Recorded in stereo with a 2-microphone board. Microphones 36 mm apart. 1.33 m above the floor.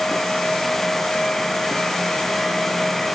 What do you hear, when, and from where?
Only background noise.